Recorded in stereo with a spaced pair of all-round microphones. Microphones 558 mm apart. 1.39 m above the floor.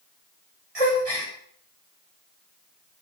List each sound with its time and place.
0.8 s a gasp: 85° right, 7.5 m